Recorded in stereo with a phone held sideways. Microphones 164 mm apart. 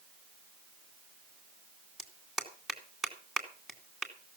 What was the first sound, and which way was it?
A clap, centre (ahead or behind).